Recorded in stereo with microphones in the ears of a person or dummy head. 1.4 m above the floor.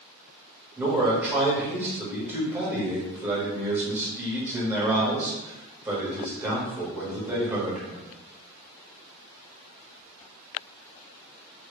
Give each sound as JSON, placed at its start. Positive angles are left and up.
{"t": 0.8, "sound": "a man speaking", "side_deg": -15, "distance_m": 1.4}